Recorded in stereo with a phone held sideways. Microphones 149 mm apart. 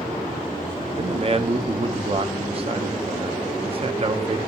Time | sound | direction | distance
1.0 | a man speaking | 40° right (ahead or behind) | 0.5 m